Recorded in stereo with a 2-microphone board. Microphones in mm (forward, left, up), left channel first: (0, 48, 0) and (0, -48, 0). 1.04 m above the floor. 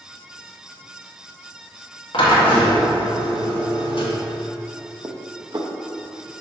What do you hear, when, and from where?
2.1 s a drill: 65° left (ahead or behind), 1.6 m
5.0 s dishes clattering: 45° right (ahead or behind), 0.6 m